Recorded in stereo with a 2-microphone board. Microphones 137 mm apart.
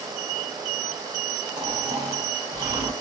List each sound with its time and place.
1.6 s snoring: 30° right (ahead or behind), 1.0 m